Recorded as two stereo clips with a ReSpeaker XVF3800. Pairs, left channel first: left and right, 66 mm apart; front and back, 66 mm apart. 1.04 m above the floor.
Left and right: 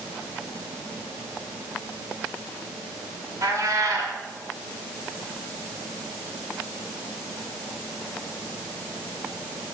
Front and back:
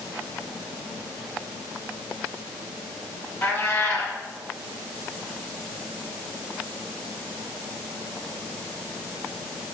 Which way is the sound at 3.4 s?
55° right.